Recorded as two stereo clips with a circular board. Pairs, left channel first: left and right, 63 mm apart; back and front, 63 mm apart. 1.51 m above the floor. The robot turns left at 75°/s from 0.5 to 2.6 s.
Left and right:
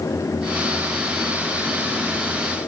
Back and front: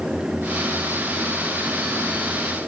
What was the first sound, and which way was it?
Only background noise.